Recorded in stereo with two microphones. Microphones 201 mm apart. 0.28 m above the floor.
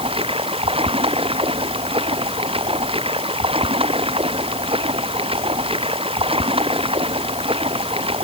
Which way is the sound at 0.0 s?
25° right (ahead or behind).